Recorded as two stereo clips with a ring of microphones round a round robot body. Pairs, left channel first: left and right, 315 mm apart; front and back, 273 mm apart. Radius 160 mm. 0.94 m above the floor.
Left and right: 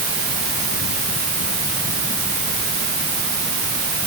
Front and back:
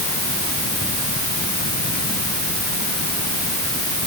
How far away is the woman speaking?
No woman speaking in this recording.